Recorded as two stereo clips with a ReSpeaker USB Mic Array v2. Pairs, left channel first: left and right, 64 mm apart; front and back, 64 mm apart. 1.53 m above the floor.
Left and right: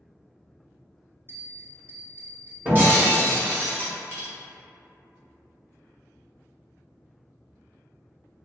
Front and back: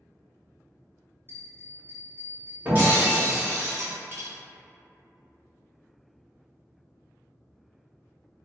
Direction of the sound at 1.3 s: 135° right.